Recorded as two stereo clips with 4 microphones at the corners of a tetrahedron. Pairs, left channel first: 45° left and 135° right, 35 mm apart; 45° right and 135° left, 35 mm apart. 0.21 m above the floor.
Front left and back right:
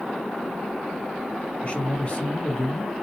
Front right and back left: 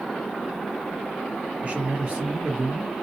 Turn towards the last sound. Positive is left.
turn(degrees=90)